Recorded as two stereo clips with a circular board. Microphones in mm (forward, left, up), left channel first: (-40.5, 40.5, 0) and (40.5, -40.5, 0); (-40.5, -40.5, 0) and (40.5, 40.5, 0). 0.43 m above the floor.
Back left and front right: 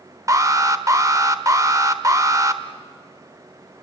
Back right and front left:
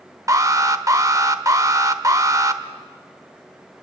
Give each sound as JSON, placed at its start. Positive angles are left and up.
{"t": 0.3, "sound": "an alarm", "azimuth_deg": 0, "distance_m": 1.0}